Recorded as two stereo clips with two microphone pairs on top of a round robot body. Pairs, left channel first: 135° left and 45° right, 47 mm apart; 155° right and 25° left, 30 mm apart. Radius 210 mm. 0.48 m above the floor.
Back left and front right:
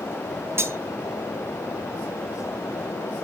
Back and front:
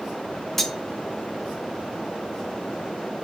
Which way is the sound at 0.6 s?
65° right.